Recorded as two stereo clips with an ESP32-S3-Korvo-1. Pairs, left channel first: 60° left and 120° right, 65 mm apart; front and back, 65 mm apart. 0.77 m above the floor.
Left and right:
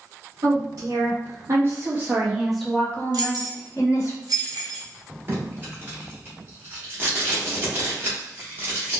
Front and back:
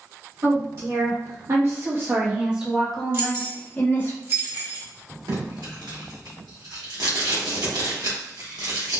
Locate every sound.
0.4 s a woman speaking: 145° right, 1.5 m; by 4.1 s 50° left, 1.1 m
3.1 s keys jangling: 125° right, 0.9 m
5.3 s tape being pulled: straight behind, 1.2 m